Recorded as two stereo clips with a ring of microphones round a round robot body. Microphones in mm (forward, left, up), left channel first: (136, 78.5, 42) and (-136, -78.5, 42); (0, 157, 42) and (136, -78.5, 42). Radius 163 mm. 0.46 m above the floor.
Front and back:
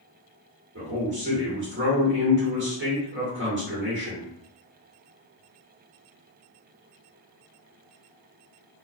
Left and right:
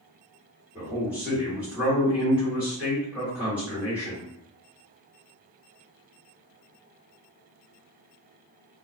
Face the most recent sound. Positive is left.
turn(degrees=-140)